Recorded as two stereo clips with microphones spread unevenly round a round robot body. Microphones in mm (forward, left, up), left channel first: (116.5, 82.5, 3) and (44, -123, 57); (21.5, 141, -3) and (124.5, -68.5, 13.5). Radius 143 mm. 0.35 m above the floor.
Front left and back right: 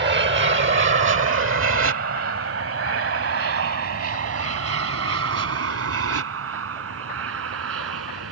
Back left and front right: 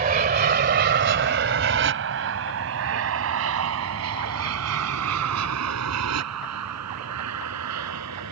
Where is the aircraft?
95° right.